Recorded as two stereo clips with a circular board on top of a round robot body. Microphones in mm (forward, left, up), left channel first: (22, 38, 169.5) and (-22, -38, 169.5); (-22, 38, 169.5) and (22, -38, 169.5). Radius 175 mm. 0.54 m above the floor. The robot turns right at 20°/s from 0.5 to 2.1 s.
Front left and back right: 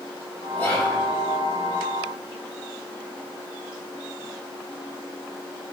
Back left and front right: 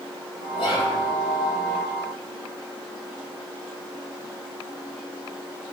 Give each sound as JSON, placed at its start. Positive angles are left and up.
{"t": 0.6, "sound": "whispering", "azimuth_deg": 130, "distance_m": 5.5}